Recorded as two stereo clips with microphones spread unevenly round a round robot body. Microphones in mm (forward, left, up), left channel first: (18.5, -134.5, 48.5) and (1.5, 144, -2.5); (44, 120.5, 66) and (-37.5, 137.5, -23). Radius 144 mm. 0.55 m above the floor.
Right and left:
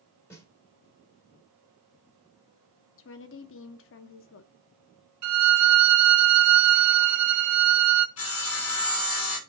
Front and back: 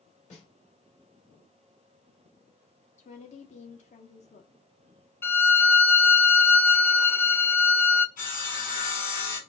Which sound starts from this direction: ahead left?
A violin, at 5.2 s.